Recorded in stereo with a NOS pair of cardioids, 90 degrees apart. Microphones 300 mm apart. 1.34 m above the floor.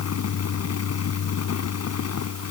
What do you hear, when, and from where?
0.0 s a fan: 55° left